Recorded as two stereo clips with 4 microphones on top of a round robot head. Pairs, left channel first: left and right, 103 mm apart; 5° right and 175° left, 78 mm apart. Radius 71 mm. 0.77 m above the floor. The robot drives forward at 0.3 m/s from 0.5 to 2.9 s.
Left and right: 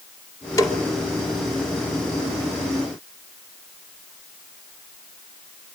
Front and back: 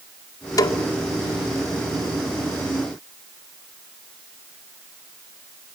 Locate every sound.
0.6 s a snare drum: 30° left, 2 m